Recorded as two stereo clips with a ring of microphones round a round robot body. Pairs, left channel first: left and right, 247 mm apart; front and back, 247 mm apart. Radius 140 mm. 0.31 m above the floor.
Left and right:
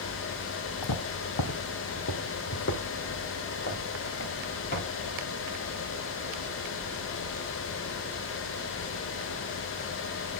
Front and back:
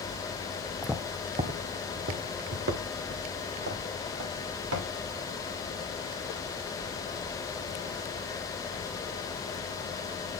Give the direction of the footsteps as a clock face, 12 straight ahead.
9 o'clock.